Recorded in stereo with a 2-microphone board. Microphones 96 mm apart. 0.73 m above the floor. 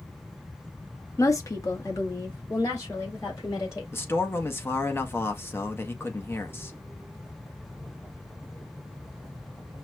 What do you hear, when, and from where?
1.2 s a woman speaking: 30° left (ahead or behind), 0.7 m; by 3.8 s 35° left (ahead or behind), 2.5 m
3.9 s a man speaking: 25° left (ahead or behind), 0.7 m